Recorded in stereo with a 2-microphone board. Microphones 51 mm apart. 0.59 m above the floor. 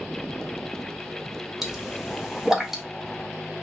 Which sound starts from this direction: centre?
A pop, at 1.6 s.